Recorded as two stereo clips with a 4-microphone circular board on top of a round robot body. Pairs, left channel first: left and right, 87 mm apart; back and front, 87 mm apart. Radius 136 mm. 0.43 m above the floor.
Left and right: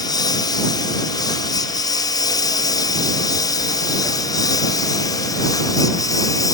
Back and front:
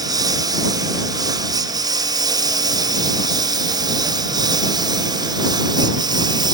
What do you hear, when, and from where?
0.0 s a lawn mower: 45° left; by 6.5 s 40° left